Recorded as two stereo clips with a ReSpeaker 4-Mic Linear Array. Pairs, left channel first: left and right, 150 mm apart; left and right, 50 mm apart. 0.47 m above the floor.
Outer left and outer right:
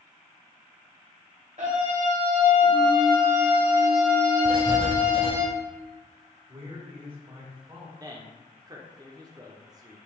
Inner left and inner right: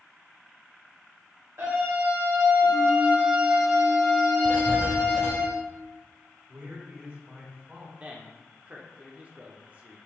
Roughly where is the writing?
Right.